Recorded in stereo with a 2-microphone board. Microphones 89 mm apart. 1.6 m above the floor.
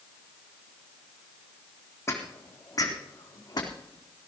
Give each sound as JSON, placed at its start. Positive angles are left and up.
{"t": 2.1, "sound": "footsteps", "side_deg": 35, "distance_m": 4.0}